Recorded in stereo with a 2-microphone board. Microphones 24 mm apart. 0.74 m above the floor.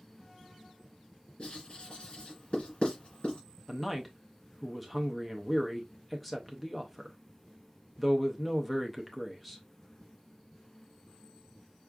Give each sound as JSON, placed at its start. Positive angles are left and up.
{"t": 1.4, "sound": "writing", "side_deg": 50, "distance_m": 2.5}
{"t": 3.7, "sound": "a man speaking", "side_deg": 5, "distance_m": 0.5}